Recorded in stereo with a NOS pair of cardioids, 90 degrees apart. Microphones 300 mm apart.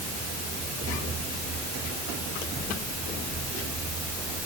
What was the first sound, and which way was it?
Only background noise.